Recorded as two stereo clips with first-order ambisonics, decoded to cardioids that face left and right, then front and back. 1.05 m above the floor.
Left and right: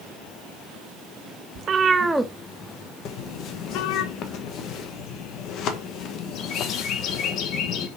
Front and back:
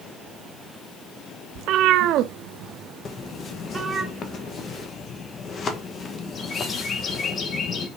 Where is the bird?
60° left, 1.3 m.